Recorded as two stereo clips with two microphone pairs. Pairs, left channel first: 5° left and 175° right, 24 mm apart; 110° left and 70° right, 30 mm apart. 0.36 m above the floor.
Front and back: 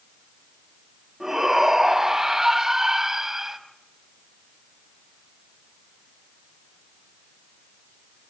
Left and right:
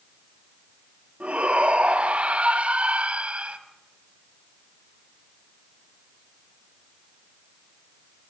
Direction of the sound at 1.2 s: 110° right.